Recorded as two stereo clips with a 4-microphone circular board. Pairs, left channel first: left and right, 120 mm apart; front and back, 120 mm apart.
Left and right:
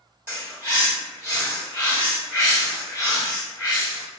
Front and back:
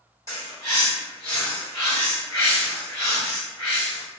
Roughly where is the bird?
Behind right.